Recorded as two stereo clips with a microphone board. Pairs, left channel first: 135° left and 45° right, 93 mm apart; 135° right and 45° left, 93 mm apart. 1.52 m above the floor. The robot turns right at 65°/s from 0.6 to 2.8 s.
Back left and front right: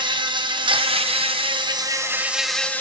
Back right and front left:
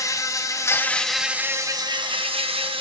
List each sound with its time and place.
0.0 s an insect: 80° right, 0.9 m; by 2.8 s 65° left, 0.9 m